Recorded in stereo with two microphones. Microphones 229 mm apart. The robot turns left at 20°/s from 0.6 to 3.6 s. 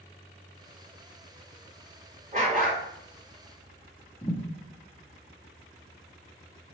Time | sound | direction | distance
2.3 | a dog barking | 35° right (ahead or behind) | 1.5 m
4.2 | a thud | 20° left (ahead or behind) | 1.0 m